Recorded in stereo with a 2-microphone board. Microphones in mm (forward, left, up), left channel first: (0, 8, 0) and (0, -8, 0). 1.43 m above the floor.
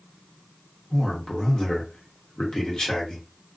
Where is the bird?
I don't hear a bird.